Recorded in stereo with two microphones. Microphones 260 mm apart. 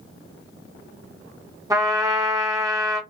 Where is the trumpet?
15° right (ahead or behind), 0.8 m.